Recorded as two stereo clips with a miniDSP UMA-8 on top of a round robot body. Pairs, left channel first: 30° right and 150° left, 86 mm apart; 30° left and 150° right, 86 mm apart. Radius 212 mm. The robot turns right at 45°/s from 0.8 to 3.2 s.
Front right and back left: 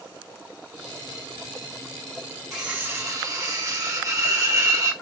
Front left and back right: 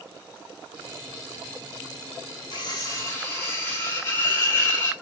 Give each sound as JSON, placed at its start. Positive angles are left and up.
{"t": 2.5, "sound": "cutlery clinking", "azimuth_deg": 65, "distance_m": 0.6}